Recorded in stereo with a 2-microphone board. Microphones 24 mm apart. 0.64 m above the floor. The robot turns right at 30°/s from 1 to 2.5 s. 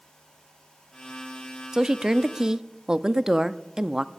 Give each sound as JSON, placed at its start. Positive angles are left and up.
{"t": 1.7, "sound": "a woman speaking", "side_deg": -25, "distance_m": 0.5}